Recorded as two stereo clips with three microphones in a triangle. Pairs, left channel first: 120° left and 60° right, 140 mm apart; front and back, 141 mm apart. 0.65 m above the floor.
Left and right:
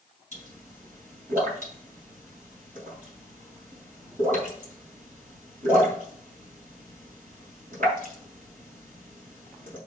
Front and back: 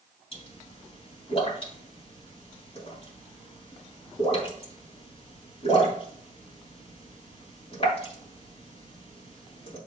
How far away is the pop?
About 3.5 m.